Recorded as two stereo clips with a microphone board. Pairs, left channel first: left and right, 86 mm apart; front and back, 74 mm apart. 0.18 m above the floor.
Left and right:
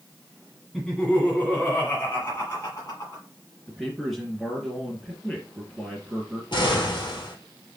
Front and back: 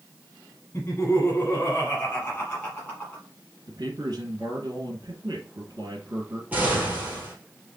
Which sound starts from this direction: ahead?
Laughter, at 0.7 s.